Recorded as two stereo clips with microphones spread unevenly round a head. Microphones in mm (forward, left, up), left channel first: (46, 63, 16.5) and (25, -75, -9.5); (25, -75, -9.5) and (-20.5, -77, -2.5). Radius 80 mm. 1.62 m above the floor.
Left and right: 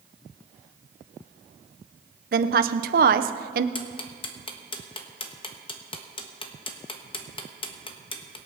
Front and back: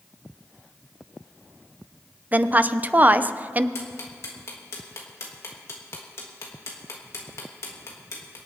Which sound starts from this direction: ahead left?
Ticking, at 3.8 s.